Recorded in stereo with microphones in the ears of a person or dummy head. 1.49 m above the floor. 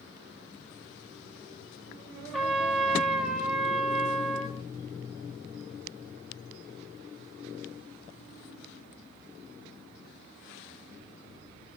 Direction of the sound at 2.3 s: Centre (ahead or behind).